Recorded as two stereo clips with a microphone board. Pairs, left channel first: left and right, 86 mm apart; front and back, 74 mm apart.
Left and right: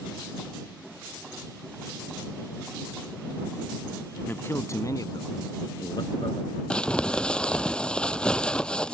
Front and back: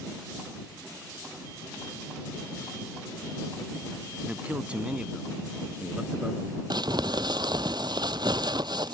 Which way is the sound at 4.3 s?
125° left.